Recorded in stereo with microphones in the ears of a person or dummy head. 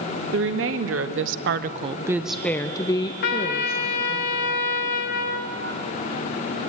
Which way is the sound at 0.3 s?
65° right (ahead or behind).